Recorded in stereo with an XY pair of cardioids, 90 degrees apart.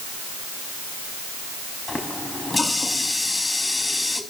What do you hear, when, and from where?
1.9 s a running tap: 20° left, 4.5 m